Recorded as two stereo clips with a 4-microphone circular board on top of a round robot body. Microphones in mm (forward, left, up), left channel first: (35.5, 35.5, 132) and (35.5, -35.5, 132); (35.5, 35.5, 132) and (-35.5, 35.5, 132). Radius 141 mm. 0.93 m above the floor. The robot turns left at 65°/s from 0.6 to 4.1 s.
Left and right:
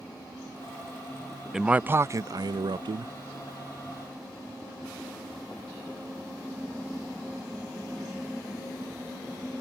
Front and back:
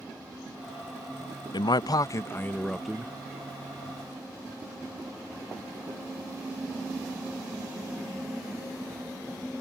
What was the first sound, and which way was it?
A man speaking, 5° right.